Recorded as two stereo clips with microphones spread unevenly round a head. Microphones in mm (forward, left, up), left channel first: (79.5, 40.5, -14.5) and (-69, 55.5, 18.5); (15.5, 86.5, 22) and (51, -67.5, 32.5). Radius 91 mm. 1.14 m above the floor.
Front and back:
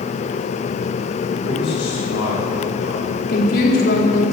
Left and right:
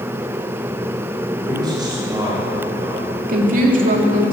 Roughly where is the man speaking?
Ahead.